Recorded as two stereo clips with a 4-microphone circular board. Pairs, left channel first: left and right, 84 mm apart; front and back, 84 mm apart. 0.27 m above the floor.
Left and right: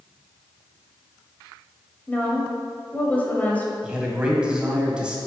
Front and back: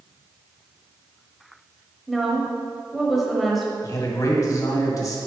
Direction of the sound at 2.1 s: 90° left.